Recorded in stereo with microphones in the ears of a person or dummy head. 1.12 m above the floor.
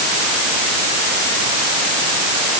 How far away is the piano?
I don't hear a piano.